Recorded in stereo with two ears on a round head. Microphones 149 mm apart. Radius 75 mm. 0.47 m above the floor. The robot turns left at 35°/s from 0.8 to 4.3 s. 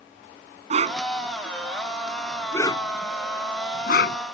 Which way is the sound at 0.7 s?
45° right (ahead or behind).